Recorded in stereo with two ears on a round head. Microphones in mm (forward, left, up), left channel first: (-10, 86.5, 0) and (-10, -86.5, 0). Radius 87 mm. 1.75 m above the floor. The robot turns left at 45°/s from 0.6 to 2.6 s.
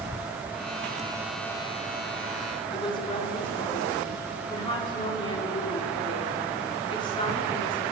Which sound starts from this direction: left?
A woman speaking, at 2.7 s.